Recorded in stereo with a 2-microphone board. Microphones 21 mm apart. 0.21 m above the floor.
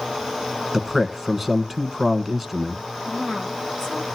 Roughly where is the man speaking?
Centre.